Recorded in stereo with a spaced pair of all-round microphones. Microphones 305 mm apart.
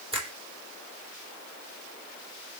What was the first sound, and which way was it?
A finger snap, 15° right (ahead or behind).